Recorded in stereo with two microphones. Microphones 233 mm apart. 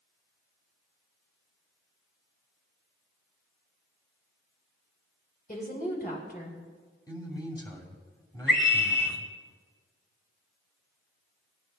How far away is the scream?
About 2.5 m.